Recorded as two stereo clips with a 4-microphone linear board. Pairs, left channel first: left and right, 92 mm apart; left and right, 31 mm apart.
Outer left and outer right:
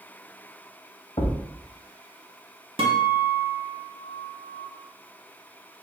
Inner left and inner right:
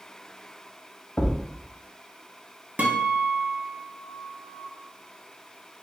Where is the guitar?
75° right (ahead or behind), 0.7 m.